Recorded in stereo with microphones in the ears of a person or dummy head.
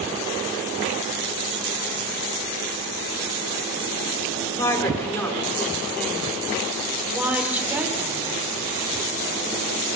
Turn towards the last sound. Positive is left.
turn(degrees=-15)  # may be behind; listen again after turning